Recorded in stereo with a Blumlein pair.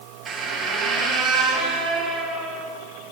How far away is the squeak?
About 2.5 m.